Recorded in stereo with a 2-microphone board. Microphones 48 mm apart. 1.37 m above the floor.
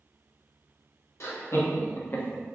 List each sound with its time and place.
1.2 s laughter: 75° left (ahead or behind), 1.0 m; by 2.4 s 20° left (ahead or behind), 0.5 m